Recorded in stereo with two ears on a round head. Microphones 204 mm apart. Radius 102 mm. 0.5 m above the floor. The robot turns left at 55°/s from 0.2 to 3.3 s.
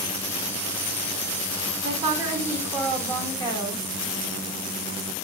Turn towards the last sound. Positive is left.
turn(degrees=150)